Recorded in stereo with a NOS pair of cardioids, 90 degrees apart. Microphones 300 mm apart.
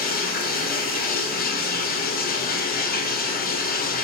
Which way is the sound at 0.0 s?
30° left.